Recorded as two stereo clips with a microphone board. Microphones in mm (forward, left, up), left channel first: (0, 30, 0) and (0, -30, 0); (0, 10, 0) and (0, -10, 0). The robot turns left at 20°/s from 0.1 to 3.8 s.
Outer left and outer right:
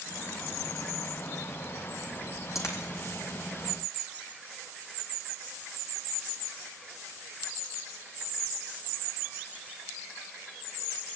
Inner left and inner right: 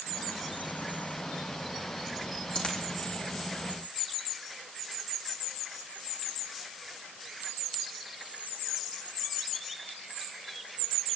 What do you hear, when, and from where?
2.5 s a dropped coin: 65° left (ahead or behind), 4 m; by 2.8 s 60° left (ahead or behind), 4 m